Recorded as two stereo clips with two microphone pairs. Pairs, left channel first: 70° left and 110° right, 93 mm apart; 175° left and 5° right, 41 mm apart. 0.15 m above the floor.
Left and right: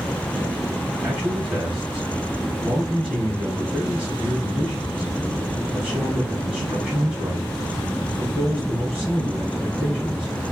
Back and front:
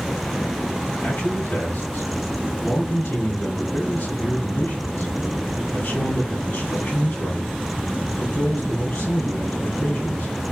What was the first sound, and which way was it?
A man speaking, 175° left.